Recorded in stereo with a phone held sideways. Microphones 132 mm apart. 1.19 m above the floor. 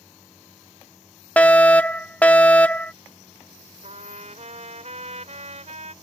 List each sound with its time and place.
1.4 s a fire alarm: 10° left (ahead or behind)
3.8 s a trumpet: 60° right (ahead or behind)